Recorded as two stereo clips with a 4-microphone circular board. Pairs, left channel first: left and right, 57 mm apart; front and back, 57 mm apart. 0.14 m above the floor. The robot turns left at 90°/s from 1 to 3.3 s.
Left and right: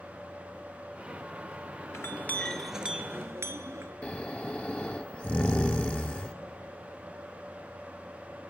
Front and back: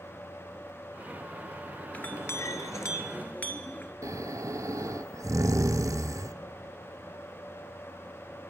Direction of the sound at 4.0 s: 155° left.